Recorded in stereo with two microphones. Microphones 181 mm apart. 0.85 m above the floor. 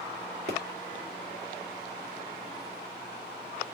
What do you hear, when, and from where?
0.5 s a pop: 65° right (ahead or behind), 2.5 m